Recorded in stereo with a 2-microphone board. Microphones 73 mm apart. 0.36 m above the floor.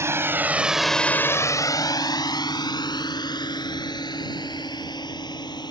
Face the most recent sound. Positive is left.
turn(degrees=65)  # may be behind; listen again after turning